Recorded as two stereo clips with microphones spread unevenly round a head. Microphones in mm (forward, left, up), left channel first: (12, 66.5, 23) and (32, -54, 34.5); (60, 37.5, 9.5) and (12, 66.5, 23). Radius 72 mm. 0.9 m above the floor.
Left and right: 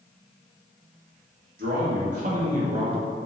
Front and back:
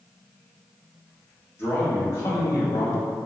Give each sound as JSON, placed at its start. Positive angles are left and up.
{"t": 1.6, "sound": "a man speaking", "azimuth_deg": -90, "distance_m": 1.2}